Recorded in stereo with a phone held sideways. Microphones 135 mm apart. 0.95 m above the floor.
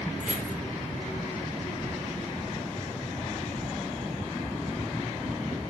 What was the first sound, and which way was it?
Keys jangling, 65° right (ahead or behind).